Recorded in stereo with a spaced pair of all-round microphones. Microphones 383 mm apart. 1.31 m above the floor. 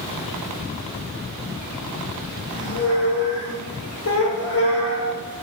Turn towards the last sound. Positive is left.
turn(degrees=40)  # may be behind; listen again after turning